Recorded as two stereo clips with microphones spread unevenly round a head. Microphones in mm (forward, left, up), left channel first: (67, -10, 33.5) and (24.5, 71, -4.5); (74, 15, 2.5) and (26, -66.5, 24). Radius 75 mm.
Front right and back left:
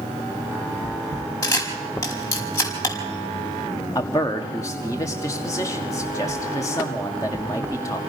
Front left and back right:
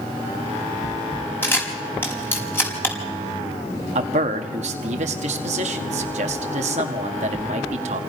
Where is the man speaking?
135° right, 1.5 m.